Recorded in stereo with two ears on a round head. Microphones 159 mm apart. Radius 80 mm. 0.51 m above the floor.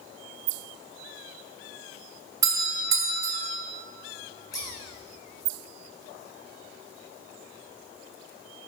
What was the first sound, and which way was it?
A doorbell, 20° right (ahead or behind).